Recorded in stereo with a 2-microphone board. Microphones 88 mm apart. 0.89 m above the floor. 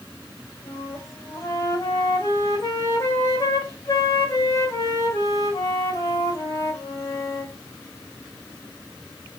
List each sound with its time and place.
0.6 s a flute: 35° left (ahead or behind), 2 m